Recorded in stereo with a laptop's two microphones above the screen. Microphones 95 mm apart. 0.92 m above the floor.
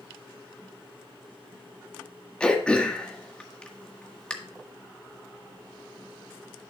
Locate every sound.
2.4 s throat clearing: 10° left (ahead or behind), 1.6 m